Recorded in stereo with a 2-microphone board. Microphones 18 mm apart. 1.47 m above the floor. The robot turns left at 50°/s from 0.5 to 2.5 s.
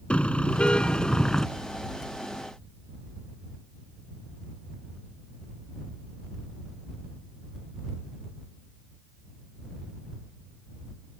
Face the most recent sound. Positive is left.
turn(degrees=-20)